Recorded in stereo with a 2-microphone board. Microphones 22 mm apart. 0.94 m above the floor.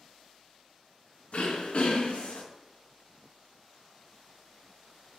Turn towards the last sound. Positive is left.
turn(degrees=55)  # may be behind; listen again after turning